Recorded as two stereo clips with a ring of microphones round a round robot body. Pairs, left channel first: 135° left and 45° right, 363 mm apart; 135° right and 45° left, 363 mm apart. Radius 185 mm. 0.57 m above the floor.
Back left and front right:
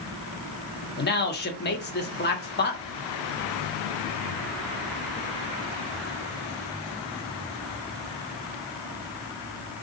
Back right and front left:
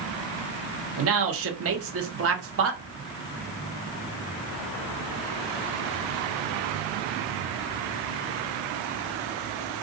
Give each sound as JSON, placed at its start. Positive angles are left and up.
{"t": 1.0, "sound": "a man speaking", "azimuth_deg": 80, "distance_m": 0.9}